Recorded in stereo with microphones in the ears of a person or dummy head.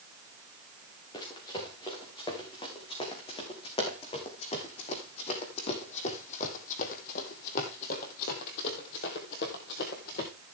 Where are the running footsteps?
25° left (ahead or behind), 4.5 m; by 10.3 s 40° left (ahead or behind), 1.8 m.